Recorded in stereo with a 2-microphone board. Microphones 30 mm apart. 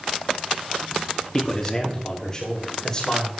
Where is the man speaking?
25° left (ahead or behind), 2.5 m.